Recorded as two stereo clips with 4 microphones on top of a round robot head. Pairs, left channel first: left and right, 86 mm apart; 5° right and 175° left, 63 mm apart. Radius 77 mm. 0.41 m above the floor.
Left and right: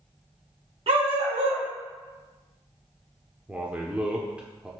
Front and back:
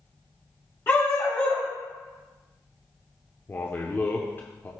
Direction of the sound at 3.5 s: 25° right.